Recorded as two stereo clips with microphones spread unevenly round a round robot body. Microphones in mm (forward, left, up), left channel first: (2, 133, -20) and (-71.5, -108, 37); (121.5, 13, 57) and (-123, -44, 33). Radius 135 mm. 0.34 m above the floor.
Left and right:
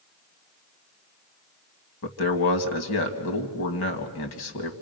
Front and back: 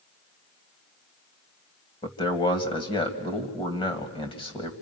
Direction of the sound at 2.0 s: 85° left.